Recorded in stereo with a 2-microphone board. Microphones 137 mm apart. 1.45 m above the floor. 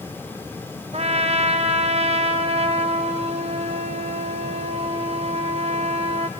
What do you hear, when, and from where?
0.9 s a trumpet: 55° right (ahead or behind), 0.8 m